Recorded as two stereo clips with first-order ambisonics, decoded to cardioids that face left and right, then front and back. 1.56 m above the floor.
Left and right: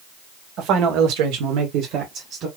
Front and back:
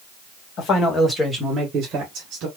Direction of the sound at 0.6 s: 45° right.